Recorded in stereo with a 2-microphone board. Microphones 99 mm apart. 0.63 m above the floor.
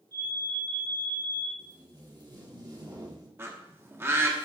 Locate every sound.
0.1 s an alarm: 45° right (ahead or behind), 4.5 m
1.6 s tape being pulled: 45° right (ahead or behind), 1.4 m
3.4 s a bird: 25° right (ahead or behind), 1.1 m